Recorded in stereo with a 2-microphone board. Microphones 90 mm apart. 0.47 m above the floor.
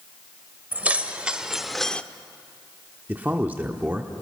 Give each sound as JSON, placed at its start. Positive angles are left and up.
{"t": 0.7, "sound": "keys jangling", "side_deg": -20, "distance_m": 1.2}
{"t": 3.1, "sound": "a man speaking", "side_deg": -20, "distance_m": 1.0}